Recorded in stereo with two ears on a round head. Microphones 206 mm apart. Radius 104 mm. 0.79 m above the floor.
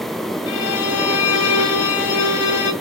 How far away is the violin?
About 2.0 m.